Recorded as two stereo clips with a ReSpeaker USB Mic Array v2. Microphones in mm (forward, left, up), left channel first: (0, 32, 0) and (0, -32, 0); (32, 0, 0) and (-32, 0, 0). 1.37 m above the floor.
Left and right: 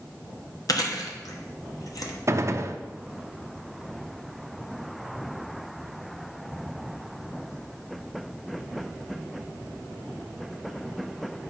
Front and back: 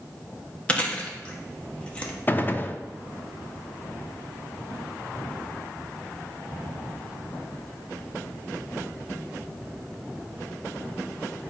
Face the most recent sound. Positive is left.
turn(degrees=-55)